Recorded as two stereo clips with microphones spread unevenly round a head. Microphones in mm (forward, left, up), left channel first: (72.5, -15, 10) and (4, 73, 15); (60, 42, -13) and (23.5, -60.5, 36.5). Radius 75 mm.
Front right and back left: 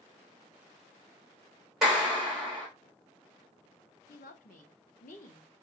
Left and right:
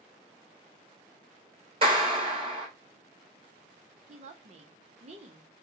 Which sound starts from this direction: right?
A woman speaking, at 4.1 s.